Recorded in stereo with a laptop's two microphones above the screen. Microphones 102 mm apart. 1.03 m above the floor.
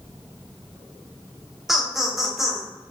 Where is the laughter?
5° right (ahead or behind), 0.7 m.